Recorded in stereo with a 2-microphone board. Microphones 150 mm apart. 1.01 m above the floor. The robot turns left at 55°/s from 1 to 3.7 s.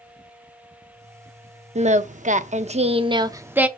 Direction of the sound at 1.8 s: 65° right.